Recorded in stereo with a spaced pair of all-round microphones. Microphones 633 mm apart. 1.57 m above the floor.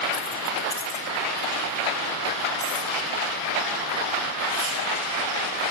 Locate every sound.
0.1 s keys jangling: 20° right (ahead or behind), 0.7 m; by 4.8 s 60° left (ahead or behind), 4 m